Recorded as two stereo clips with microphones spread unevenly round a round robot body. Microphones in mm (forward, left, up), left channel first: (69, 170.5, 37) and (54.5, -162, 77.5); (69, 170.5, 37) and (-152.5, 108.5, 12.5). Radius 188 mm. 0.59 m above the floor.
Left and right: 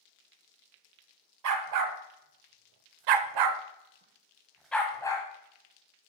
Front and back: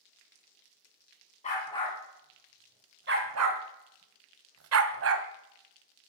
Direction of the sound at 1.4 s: 60° right.